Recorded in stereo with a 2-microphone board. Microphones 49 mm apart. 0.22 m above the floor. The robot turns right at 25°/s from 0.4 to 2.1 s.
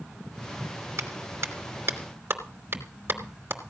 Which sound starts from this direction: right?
A clap, at 1.0 s.